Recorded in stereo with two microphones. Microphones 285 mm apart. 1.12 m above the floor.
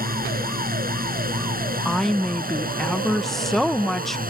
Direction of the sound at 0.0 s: 30° right (ahead or behind).